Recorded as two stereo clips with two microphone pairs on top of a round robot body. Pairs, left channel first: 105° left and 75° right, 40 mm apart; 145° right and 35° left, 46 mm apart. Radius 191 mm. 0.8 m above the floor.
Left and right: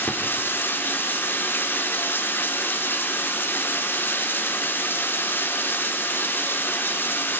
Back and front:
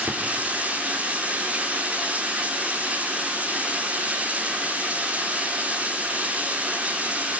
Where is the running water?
95° left, 2.5 m.